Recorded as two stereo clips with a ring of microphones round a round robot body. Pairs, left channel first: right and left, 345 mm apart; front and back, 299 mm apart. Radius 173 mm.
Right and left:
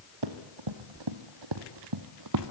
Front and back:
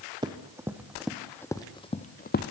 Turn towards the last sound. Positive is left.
turn(degrees=50)